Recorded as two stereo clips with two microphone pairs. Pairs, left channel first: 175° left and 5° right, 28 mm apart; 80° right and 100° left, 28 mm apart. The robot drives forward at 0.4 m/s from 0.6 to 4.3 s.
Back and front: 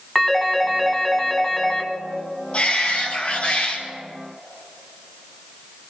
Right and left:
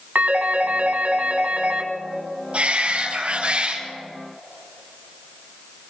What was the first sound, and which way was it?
A phone ringing, 90° left.